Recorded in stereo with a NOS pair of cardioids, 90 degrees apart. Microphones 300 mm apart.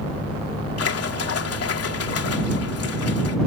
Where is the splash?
50° left.